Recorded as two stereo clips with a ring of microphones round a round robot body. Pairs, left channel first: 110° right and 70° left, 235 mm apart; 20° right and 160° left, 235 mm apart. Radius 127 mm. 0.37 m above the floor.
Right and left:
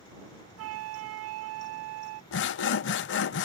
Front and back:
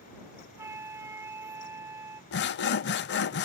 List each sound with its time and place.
0.6 s a flute: 80° left
2.3 s sawing: 70° right